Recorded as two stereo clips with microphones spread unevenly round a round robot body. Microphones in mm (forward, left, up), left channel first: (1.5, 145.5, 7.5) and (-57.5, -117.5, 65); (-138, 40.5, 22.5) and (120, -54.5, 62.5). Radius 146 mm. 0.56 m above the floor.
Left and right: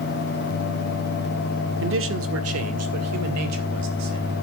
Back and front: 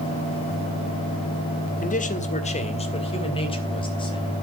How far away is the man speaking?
About 1.7 m.